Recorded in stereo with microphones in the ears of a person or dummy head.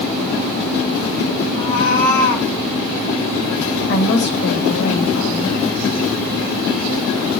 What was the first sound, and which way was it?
A cat meowing, 55° left (ahead or behind).